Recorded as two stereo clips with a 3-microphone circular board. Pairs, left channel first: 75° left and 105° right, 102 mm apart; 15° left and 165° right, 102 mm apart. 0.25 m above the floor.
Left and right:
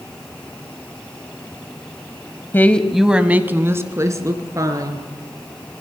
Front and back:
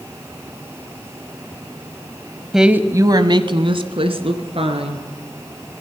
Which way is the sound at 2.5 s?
110° left.